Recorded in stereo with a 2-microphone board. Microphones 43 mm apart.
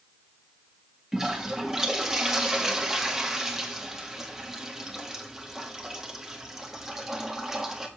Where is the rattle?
No rattle in this recording.